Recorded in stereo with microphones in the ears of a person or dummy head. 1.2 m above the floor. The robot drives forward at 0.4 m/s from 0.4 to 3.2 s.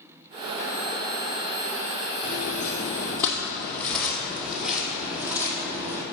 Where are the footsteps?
40° left (ahead or behind), 1.6 m; by 6.0 s 20° right (ahead or behind), 2 m.